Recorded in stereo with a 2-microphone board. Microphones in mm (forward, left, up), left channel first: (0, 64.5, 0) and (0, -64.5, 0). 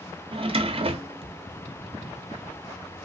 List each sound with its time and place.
0.3 s a drawer: 45° right (ahead or behind), 0.5 m